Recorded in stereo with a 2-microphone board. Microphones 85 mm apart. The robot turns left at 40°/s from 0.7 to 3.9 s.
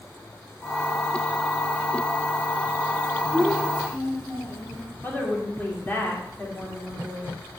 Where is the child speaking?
20° left (ahead or behind), 5 m; by 4.8 s 5° right (ahead or behind), 5 m.